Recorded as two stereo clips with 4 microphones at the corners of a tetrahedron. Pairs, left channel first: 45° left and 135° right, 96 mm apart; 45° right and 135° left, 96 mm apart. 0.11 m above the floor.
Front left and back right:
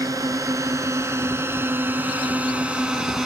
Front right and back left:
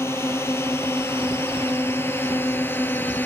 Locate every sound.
0.0 s a drone: 100° right; by 3.3 s 55° right